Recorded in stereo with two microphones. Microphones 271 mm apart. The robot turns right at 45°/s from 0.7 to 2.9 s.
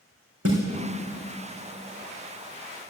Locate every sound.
0.5 s a snare drum: 60° right (ahead or behind), 3.5 m